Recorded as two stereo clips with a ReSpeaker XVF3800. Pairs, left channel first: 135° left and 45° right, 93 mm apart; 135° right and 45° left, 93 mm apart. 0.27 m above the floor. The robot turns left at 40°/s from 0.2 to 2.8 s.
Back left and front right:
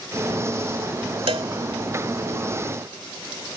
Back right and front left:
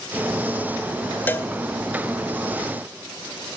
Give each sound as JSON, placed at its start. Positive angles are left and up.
{"t": 1.3, "sound": "a cowbell", "azimuth_deg": -65, "distance_m": 0.6}